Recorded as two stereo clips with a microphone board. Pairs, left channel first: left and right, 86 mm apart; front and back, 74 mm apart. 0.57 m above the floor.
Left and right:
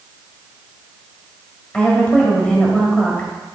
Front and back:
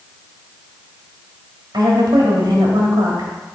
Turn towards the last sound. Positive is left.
turn(degrees=165)